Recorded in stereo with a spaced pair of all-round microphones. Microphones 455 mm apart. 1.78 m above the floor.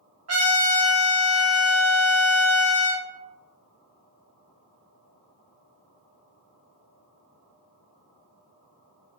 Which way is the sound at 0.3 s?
35° right (ahead or behind).